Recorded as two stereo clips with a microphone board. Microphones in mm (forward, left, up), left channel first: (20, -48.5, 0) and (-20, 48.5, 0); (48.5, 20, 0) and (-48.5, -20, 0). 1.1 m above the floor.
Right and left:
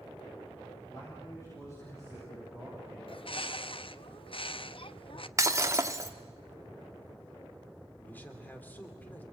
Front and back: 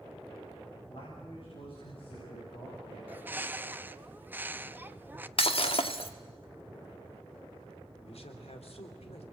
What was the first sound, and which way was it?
A man speaking, 10° right.